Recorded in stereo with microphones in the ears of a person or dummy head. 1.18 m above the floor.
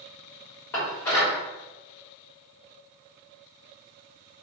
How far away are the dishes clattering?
About 1.3 m.